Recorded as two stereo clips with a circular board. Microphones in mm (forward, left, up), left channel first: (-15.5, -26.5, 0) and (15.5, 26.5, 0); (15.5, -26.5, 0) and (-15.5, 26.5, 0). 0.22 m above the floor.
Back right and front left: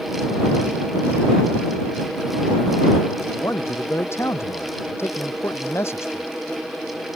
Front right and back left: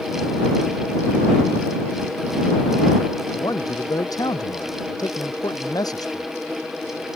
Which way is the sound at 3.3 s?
70° right.